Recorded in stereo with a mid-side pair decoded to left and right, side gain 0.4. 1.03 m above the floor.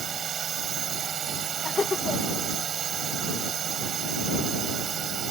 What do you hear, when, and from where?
0.0 s a drone: 60° right
1.6 s laughter: 35° left